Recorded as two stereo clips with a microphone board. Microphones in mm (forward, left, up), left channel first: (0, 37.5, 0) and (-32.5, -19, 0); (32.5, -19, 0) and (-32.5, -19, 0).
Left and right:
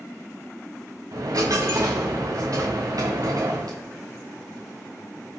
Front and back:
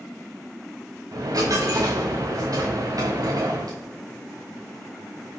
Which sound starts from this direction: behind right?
A dropped coin, at 1.1 s.